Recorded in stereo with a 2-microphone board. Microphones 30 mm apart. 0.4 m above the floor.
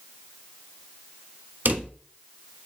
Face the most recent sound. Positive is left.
turn(degrees=-70)  # may be behind; listen again after turning